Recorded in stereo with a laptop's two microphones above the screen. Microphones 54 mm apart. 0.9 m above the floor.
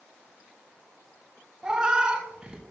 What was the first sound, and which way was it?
A cat meowing, 20° right (ahead or behind).